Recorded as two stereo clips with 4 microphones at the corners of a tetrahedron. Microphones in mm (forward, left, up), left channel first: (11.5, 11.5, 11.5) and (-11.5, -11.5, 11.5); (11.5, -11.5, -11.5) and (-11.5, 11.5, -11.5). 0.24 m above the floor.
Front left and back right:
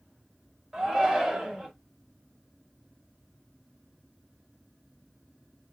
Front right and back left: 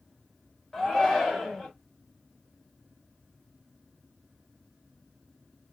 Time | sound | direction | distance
0.7 | a shout | 110° right | 1.0 m